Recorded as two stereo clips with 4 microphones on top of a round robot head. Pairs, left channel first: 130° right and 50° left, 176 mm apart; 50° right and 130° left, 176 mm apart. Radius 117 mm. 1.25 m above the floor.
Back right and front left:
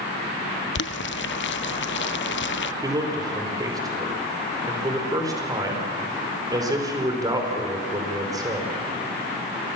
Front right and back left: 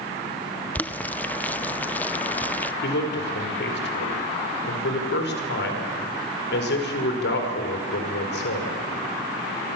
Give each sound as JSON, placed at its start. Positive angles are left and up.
{"t": 0.8, "sound": "boiling", "azimuth_deg": -130, "distance_m": 0.7}
{"t": 2.8, "sound": "a man speaking", "azimuth_deg": -20, "distance_m": 5.0}